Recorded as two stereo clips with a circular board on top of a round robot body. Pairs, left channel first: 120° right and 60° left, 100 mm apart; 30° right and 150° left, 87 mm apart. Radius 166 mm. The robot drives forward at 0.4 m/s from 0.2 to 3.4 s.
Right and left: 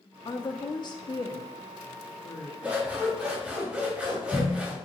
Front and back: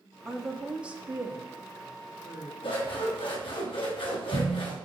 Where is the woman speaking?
120° right, 0.9 m; by 2.5 s 160° right, 1.5 m.